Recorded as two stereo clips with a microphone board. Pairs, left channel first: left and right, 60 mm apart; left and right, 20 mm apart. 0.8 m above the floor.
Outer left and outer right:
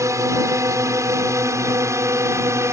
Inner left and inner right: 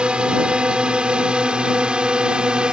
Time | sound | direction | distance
0.0 | a drone | 60° right (ahead or behind) | ?